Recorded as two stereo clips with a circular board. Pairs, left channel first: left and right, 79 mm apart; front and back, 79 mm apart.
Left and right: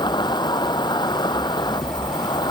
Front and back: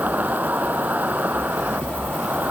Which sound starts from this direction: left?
An insect, at 0.0 s.